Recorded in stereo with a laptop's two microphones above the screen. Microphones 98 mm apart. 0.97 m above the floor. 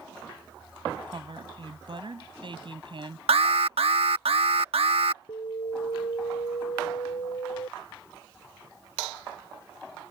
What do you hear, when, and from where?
1.1 s a woman speaking: 55° right (ahead or behind)
3.3 s an alarm: 80° right
5.3 s an alarm: 80° left